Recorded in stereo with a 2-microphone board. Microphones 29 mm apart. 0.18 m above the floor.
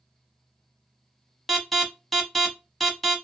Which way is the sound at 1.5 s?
5° left (ahead or behind).